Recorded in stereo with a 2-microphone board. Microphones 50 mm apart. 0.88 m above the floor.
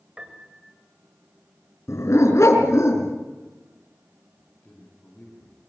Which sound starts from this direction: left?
A dog barking, at 1.9 s.